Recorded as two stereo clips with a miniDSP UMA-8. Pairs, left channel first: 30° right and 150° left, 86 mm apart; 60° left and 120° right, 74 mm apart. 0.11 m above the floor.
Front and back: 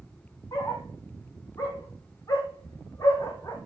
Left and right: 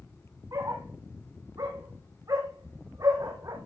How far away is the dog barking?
About 3.5 m.